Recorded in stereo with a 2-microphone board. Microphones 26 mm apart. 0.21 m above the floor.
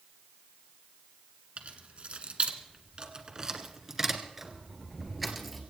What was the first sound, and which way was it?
Keys jangling, 65° right (ahead or behind).